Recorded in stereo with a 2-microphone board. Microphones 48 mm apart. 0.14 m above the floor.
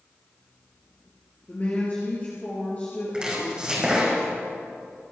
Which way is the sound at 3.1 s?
20° right (ahead or behind).